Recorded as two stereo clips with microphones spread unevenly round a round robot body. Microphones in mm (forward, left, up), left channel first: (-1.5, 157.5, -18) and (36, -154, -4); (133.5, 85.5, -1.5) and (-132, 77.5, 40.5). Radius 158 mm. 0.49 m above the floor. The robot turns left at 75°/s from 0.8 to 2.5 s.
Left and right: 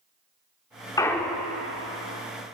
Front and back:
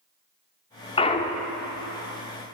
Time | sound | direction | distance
1.0 | a clunk | 30° left | 0.8 m